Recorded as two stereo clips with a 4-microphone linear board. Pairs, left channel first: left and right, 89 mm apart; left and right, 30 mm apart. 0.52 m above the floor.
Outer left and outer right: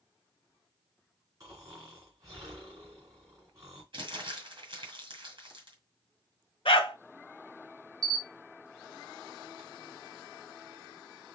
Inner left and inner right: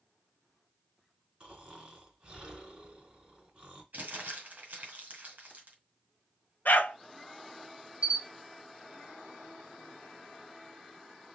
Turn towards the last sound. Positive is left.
turn(degrees=-45)  # may be behind; listen again after turning